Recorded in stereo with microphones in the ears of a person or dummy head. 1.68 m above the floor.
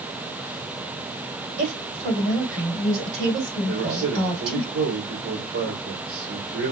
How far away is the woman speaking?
About 4 m.